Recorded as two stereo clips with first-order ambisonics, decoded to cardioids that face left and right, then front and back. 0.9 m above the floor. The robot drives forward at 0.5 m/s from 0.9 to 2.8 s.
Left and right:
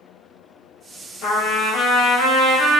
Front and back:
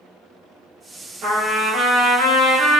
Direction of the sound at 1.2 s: 120° left.